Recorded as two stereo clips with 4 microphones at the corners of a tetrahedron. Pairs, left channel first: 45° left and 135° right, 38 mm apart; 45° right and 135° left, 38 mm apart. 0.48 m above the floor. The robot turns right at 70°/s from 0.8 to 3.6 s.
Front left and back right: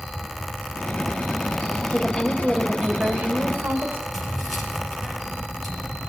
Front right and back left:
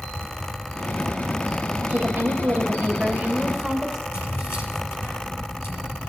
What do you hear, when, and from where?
1.9 s a woman speaking: 120° left, 2.5 m; by 4.0 s 120° right, 2.5 m
4.1 s keys jangling: 45° right, 7 m